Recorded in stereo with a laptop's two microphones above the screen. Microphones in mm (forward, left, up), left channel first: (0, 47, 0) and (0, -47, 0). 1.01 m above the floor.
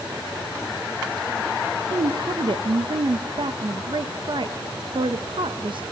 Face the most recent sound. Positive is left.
turn(degrees=-60)  # may be behind; listen again after turning